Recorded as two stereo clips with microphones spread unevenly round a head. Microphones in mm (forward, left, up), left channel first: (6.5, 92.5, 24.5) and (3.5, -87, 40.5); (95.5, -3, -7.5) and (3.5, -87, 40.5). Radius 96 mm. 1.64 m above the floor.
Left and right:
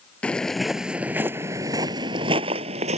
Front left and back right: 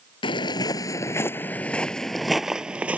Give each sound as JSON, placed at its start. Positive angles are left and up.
{"t": 0.2, "sound": "footsteps", "azimuth_deg": 0}